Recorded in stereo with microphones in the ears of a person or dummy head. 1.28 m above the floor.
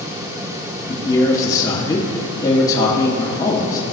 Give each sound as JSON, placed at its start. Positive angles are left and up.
{"t": 0.9, "sound": "a man speaking", "side_deg": 25, "distance_m": 1.7}